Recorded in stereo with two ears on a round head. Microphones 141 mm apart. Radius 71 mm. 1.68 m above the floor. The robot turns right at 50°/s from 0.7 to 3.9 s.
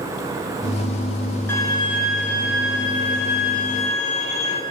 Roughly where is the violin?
Ahead.